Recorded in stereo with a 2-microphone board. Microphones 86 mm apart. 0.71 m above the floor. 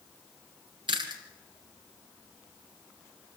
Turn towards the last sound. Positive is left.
turn(degrees=-65)  # may be behind; listen again after turning